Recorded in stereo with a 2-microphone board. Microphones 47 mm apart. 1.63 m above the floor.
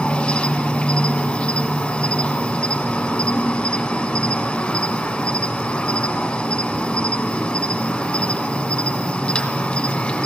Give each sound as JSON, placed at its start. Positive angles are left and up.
{"t": 0.0, "sound": "an insect", "side_deg": 15, "distance_m": 2.0}